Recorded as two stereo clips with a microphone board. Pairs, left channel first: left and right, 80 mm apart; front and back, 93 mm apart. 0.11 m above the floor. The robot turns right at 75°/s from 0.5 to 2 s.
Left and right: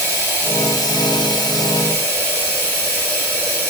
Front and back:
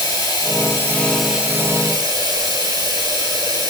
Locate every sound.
0.0 s running water: 35° left, 1.1 m; by 3.7 s 150° left, 1.1 m